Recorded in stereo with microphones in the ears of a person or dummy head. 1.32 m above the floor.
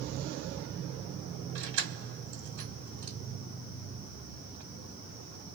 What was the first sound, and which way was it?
Keys jangling, 60° right (ahead or behind).